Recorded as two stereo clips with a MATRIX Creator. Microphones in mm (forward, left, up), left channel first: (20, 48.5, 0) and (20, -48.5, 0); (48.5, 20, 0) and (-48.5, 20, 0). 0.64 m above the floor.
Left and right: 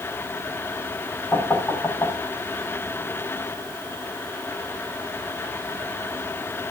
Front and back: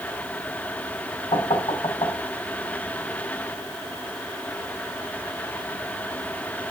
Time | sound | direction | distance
1.3 | knocking | 20° left | 4 m